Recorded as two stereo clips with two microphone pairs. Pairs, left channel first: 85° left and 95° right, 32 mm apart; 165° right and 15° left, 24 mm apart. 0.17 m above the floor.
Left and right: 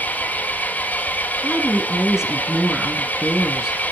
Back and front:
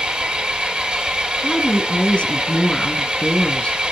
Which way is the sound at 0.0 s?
60° left.